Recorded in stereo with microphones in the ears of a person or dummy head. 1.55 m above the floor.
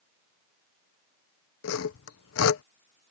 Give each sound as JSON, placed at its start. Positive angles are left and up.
{"t": 1.6, "sound": "sawing", "side_deg": 75}